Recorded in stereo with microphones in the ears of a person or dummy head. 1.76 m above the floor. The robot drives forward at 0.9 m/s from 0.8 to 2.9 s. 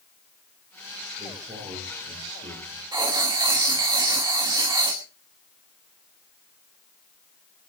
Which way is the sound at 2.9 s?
15° right (ahead or behind).